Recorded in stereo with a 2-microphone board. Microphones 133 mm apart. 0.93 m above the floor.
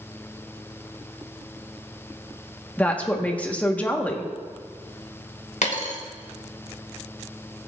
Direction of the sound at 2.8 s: 10° left (ahead or behind).